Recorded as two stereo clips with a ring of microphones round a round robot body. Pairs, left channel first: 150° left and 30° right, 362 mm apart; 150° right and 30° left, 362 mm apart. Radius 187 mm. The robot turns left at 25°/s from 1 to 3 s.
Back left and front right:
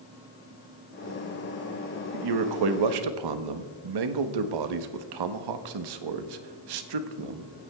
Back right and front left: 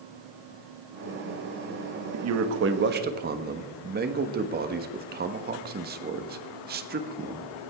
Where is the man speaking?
10° right, 1.2 m; by 7.5 s 35° right, 1.2 m.